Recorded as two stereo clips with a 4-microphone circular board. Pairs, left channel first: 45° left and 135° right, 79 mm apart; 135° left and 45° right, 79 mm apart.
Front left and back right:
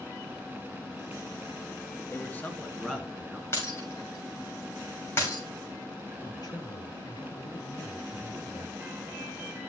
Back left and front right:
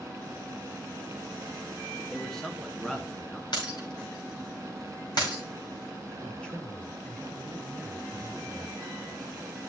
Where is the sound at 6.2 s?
60° left, 2.5 m.